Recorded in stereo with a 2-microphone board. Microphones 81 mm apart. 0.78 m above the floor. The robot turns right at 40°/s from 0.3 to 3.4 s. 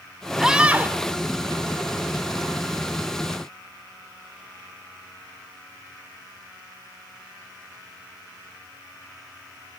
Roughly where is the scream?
Centre.